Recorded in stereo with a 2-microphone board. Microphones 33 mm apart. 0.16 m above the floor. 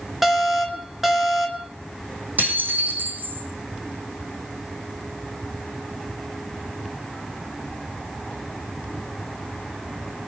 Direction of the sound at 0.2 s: 5° right (ahead or behind).